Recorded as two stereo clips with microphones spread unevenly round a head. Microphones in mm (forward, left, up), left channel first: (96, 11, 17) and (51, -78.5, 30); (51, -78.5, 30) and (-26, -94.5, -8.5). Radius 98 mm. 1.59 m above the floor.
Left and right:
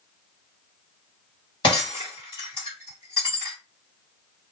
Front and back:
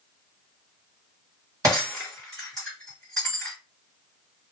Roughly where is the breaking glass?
Left.